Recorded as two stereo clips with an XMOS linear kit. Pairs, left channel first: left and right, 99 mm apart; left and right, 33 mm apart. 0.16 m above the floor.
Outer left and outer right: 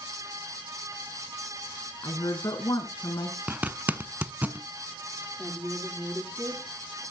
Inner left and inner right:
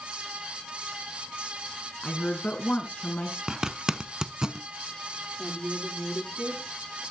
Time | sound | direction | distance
2.0 | a woman speaking | 40° left (ahead or behind) | 1.5 m
3.5 | a zipper | 15° right (ahead or behind) | 0.6 m
5.4 | a woman speaking | 20° right (ahead or behind) | 5.5 m